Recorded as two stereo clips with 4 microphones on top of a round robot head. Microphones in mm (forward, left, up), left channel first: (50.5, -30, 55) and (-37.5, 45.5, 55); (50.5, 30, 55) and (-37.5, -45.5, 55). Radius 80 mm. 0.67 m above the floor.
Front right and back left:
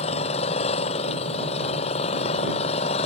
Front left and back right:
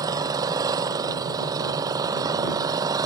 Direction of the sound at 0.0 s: 80° right.